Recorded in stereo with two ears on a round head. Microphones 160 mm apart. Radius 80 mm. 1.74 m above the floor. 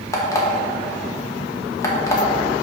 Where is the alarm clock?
20° left (ahead or behind), 1.1 m.